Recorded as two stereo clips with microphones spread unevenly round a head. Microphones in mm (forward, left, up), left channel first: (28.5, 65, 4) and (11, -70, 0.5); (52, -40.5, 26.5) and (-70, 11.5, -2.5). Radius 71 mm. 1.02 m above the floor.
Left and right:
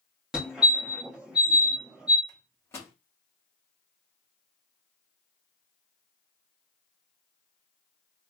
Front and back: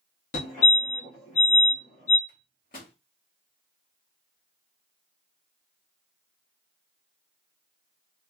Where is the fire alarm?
15° right, 1.6 m.